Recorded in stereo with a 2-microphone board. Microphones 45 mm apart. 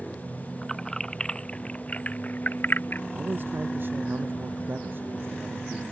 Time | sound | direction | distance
0.6 | keys jangling | 10° left (ahead or behind) | ?
3.1 | a man speaking | 50° right (ahead or behind) | ?